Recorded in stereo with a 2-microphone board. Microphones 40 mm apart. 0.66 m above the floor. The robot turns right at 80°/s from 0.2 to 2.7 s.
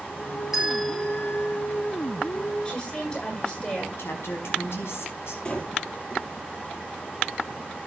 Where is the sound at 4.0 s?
85° left, 5 m.